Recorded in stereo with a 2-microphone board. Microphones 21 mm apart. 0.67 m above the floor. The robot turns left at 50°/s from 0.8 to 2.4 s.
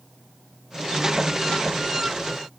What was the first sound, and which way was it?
Only background noise.